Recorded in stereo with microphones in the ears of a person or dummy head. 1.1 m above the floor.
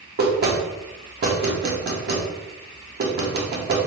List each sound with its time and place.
0.2 s knocking: 45° right (ahead or behind), 0.7 m